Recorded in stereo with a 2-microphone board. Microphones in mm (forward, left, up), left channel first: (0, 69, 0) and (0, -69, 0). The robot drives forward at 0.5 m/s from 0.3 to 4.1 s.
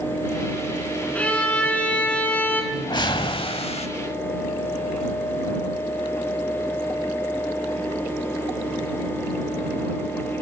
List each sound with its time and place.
1.1 s a violin: 10° left (ahead or behind), 2.5 m; by 2.6 s 15° left (ahead or behind), 1.9 m
2.7 s a whoosh: 30° left (ahead or behind), 1.0 m; by 3.9 s 50° left (ahead or behind), 0.7 m